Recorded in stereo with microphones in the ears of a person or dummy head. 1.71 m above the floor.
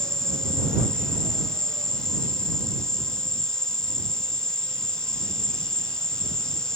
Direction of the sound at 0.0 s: 5° left (ahead or behind).